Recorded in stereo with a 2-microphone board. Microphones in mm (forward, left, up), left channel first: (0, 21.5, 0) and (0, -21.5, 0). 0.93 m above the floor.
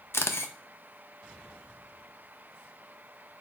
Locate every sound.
0.1 s a camera shutter: 70° left (ahead or behind), 0.5 m